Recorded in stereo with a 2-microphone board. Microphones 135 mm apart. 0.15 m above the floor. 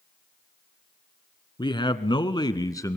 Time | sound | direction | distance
1.6 | a man speaking | 35° left (ahead or behind) | 1.5 m